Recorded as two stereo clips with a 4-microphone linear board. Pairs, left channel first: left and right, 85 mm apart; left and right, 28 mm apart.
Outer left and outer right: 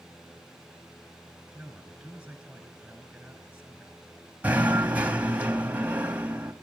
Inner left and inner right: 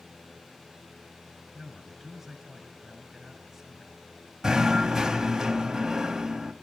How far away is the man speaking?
About 4 m.